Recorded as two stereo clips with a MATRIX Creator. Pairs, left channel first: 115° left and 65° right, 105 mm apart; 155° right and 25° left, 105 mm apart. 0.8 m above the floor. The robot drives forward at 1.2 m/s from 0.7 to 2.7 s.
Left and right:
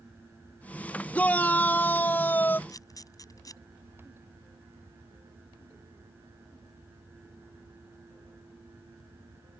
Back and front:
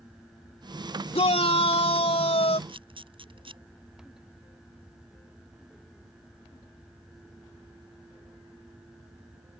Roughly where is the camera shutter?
Ahead left.